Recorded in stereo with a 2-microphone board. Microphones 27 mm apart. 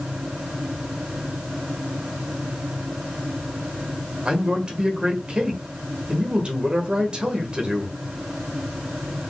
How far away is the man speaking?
About 1.4 m.